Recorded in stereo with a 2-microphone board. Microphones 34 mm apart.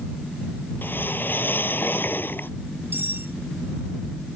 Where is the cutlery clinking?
65° right (ahead or behind).